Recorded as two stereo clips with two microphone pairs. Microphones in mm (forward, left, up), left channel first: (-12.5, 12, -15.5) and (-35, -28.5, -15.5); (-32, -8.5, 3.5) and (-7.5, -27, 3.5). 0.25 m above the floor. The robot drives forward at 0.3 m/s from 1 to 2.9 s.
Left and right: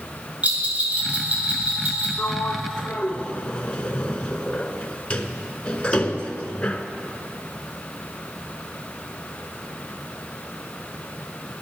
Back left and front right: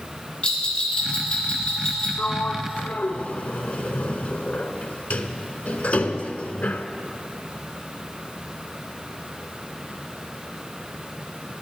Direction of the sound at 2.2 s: 110° left.